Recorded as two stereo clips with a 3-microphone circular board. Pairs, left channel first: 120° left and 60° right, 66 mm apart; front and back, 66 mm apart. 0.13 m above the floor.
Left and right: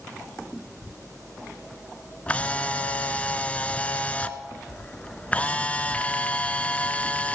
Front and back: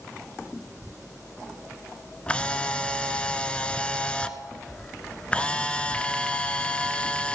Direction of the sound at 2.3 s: 65° left.